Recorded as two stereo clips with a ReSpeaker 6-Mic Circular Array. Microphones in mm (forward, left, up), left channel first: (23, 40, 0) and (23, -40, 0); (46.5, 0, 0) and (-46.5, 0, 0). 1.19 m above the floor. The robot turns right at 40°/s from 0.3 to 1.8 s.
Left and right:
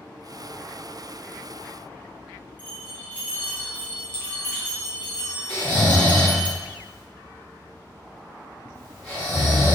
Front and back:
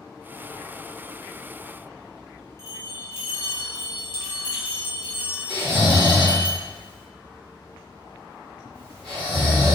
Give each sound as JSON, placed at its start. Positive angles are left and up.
{"t": 2.6, "sound": "a bell", "azimuth_deg": 35, "distance_m": 0.7}
{"t": 5.5, "sound": "snoring", "azimuth_deg": 160, "distance_m": 1.6}